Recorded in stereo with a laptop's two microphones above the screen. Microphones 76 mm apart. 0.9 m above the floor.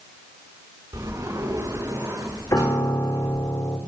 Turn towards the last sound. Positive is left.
turn(degrees=45)  # may be behind; listen again after turning